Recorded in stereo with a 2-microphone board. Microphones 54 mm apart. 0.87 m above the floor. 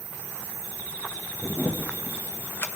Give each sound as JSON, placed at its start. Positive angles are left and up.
{"t": 1.4, "sound": "a camera shutter", "side_deg": 45, "distance_m": 0.6}